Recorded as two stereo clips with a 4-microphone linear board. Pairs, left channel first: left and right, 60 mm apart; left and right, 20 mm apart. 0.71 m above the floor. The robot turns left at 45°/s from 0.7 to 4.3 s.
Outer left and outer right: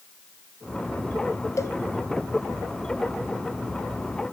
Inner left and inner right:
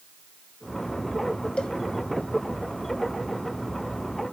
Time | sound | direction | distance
1.6 | a cowbell | 60° left (ahead or behind) | 1.0 m